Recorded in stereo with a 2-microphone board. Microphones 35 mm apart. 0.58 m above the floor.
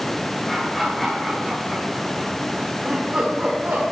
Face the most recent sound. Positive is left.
turn(degrees=-60)  # may be behind; listen again after turning